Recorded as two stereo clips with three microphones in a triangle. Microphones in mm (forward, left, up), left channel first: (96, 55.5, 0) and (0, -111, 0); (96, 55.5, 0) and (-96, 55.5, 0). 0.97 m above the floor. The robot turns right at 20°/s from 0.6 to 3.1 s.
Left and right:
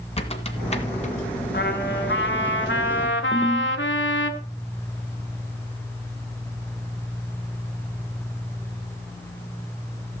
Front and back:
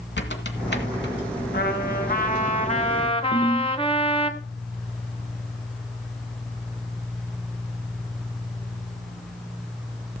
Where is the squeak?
5° left, 1.8 m; by 1.1 s 15° left, 1.8 m.